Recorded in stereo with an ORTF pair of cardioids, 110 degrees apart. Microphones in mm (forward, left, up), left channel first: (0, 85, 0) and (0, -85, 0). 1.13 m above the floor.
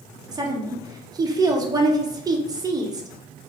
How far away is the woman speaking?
About 0.8 m.